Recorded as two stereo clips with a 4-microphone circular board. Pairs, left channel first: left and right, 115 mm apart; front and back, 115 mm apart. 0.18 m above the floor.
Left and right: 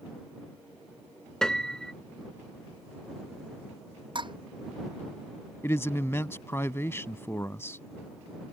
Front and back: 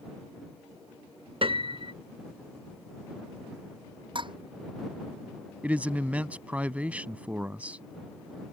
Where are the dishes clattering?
135° right.